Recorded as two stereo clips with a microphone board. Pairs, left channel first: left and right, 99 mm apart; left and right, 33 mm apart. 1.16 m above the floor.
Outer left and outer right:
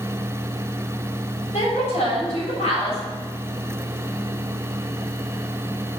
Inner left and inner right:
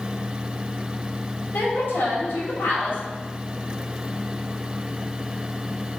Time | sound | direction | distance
1.5 | a woman speaking | 80° left | 3.5 m